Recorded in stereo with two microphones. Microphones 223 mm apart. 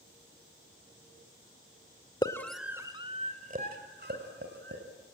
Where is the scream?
20° left (ahead or behind), 1.4 m; by 4.8 s 55° right (ahead or behind), 3.5 m.